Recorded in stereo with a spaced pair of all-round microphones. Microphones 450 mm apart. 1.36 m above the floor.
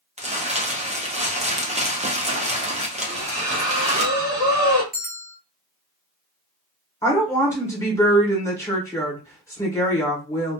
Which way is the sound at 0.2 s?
15° right (ahead or behind).